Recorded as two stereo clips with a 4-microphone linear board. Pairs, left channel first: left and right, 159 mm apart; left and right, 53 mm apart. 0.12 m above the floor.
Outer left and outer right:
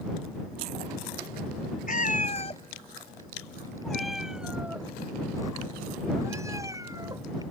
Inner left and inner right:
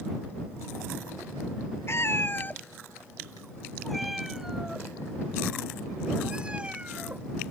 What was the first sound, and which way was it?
A cat meowing, 55° left (ahead or behind).